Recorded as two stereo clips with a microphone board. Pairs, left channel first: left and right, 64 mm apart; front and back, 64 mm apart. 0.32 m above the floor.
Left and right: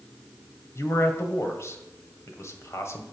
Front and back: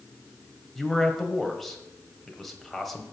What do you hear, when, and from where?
0.8 s a man speaking: 85° left, 1.6 m